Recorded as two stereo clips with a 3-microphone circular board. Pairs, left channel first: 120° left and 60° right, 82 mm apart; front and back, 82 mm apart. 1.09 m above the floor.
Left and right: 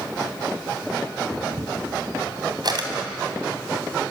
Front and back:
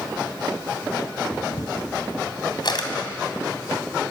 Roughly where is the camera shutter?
Ahead right.